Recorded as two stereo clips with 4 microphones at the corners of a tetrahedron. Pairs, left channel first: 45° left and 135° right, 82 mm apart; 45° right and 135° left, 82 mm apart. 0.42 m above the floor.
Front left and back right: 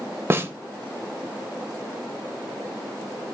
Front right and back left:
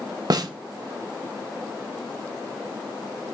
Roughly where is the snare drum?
Behind.